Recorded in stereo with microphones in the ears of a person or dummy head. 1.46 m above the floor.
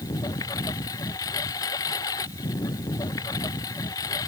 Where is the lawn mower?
15° left (ahead or behind).